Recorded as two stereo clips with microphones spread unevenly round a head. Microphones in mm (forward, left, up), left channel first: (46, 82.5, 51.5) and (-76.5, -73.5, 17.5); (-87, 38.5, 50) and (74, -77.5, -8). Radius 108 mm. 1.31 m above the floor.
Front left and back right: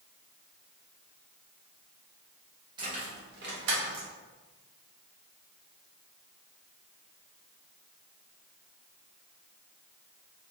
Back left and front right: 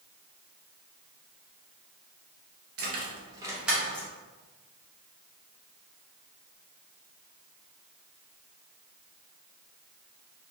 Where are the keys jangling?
55° right, 0.6 m; by 4.1 s 145° right, 0.8 m.